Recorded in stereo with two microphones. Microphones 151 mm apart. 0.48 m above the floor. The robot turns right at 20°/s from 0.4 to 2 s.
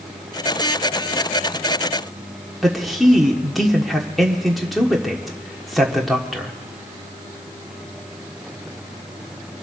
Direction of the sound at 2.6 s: Centre (ahead or behind).